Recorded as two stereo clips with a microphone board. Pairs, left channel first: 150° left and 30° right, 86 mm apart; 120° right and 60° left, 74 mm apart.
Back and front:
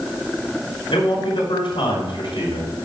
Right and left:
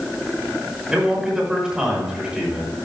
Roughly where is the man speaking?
Behind left.